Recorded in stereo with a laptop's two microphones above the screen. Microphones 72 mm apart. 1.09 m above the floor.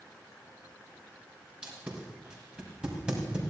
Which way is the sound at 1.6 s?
10° right (ahead or behind).